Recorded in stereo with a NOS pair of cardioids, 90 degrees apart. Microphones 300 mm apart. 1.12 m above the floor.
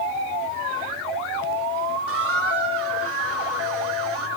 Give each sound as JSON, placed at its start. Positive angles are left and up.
{"t": 2.1, "sound": "a squeak", "azimuth_deg": -50, "distance_m": 2.5}